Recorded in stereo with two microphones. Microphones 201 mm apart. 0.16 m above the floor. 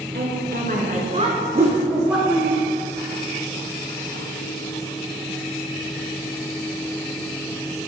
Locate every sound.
0.1 s a woman speaking: 55° right (ahead or behind), 2 m; by 2.5 s 5° left (ahead or behind), 1.9 m
1.6 s a whoosh: 30° right (ahead or behind), 1.7 m